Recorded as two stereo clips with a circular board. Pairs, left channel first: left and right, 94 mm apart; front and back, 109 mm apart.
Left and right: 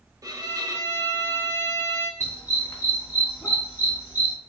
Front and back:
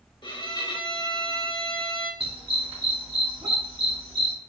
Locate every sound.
0.2 s a violin: 40° right, 0.9 m
2.2 s a dog barking: 145° left, 2.5 m